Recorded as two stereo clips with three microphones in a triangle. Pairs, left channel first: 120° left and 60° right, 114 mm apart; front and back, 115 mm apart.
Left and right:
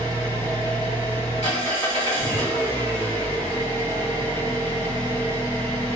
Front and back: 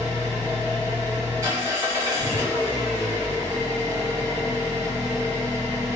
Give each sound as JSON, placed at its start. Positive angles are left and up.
{"t": 0.0, "sound": "an engine running", "azimuth_deg": 120, "distance_m": 2.0}